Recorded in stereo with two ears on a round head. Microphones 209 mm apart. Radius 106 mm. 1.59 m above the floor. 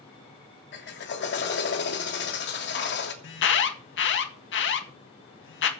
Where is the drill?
50° left (ahead or behind), 3 m.